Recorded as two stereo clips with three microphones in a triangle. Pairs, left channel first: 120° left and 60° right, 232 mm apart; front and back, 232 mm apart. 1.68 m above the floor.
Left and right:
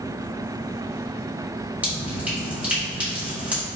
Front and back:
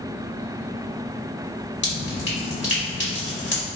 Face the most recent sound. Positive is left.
turn(degrees=20)